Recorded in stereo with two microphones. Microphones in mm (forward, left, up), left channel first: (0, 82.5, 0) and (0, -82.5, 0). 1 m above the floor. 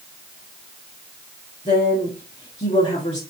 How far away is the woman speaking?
About 2 m.